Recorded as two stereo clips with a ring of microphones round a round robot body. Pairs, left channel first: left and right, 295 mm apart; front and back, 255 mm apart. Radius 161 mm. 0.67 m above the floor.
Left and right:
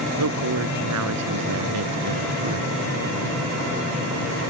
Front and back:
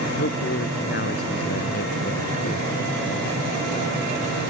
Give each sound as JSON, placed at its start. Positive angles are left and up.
{"t": 0.2, "sound": "a woman speaking", "azimuth_deg": -55}